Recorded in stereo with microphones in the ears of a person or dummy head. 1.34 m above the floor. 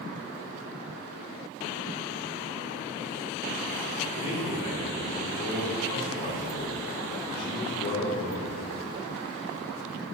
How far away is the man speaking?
About 4 m.